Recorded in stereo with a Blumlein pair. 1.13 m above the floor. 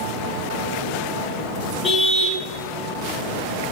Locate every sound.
1.8 s a car horn: 15° left, 3.5 m